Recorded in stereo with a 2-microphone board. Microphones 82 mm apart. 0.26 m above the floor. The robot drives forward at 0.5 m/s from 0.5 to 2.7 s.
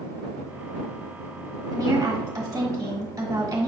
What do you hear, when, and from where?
1.7 s a woman speaking: 40° right (ahead or behind), 1.3 m